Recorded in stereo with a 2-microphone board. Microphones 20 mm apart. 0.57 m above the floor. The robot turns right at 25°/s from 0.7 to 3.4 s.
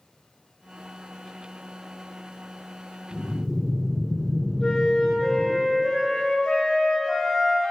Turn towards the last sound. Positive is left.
turn(degrees=65)  # may be behind; listen again after turning